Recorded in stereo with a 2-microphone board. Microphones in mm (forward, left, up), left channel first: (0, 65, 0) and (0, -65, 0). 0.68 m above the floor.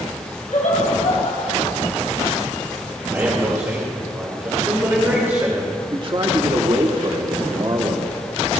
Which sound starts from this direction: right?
A man speaking, at 5.9 s.